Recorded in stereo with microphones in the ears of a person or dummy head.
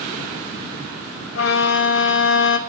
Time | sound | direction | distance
1.4 | a violin | 70° left (ahead or behind) | 1.1 m